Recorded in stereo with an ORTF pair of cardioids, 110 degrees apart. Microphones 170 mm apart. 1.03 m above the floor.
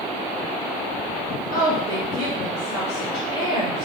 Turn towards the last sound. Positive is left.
turn(degrees=30)